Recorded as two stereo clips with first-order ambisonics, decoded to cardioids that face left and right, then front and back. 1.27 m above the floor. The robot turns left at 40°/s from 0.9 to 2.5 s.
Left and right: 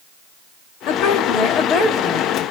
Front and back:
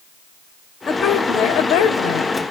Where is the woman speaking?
70° left, 2.0 m; by 2.3 s 10° left, 2.0 m.